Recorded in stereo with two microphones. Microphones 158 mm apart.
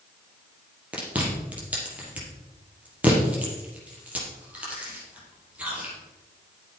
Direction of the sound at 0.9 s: 10° right (ahead or behind).